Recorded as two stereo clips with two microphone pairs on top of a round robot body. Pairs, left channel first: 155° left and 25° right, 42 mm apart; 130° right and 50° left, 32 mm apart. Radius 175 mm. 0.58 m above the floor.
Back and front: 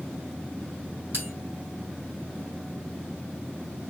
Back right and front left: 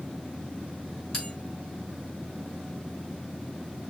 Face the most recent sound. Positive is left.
turn(degrees=-55)